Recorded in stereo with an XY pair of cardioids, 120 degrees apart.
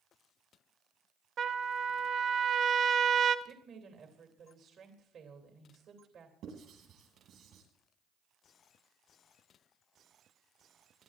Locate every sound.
1.4 s a trumpet: 55° right, 1.3 m
3.5 s a woman speaking: 55° right, 2.5 m
6.4 s writing: 65° right, 9.5 m